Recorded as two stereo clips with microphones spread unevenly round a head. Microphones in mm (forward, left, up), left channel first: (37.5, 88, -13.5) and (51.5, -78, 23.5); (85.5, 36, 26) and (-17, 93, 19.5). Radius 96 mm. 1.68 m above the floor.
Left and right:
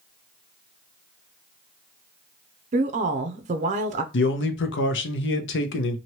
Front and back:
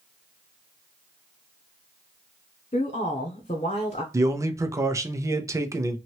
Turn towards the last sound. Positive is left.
turn(degrees=85)